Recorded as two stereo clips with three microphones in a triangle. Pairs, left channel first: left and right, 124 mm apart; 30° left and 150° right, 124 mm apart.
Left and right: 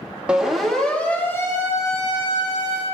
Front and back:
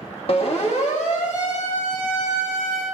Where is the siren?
10° right, 2.5 m; by 2.8 s 40° left, 5 m.